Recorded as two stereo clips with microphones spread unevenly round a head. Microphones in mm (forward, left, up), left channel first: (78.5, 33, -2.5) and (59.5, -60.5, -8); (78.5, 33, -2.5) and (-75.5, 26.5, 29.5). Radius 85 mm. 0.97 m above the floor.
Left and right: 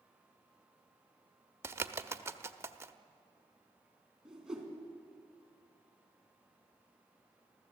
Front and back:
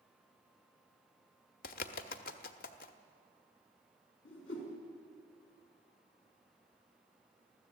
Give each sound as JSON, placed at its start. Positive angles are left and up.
{"t": 1.6, "sound": "a bird", "azimuth_deg": -40, "distance_m": 0.9}
{"t": 4.2, "sound": "a whoosh", "azimuth_deg": -15, "distance_m": 4.0}